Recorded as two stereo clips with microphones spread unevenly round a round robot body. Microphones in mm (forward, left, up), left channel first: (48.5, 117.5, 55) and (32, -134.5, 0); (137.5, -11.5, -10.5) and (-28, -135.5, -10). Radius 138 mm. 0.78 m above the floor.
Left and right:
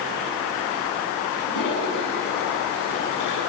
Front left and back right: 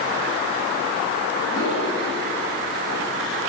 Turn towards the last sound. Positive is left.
turn(degrees=90)